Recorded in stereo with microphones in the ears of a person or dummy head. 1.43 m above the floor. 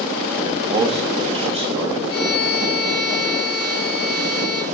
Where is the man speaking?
25° right (ahead or behind), 0.5 m; by 2.0 s 35° right (ahead or behind), 1.3 m.